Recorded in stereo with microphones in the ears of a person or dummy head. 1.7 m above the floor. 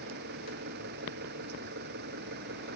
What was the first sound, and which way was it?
An engine running, 60° right (ahead or behind).